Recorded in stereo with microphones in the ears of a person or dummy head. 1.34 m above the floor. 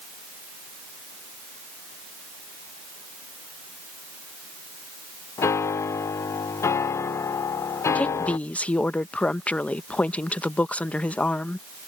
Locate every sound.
5.4 s a piano: 15° left (ahead or behind)
8.0 s a woman speaking: 5° left (ahead or behind)